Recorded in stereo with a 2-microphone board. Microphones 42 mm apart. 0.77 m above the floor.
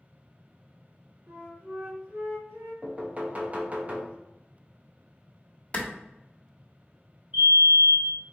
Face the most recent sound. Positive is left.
turn(degrees=-40)  # may be behind; listen again after turning